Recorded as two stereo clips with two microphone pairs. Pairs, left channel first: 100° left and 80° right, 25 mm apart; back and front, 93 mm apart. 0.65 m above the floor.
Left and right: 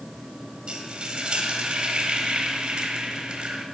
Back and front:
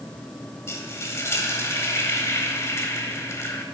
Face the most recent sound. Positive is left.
turn(degrees=-120)